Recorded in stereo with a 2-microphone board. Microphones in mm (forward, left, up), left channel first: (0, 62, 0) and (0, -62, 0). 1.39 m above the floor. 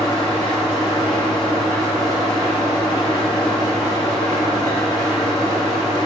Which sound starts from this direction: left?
An engine running, at 0.0 s.